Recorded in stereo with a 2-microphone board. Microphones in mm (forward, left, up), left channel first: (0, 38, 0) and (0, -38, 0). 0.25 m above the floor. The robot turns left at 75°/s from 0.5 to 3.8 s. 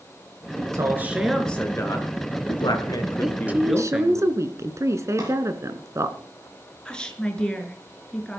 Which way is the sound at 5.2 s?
40° right (ahead or behind).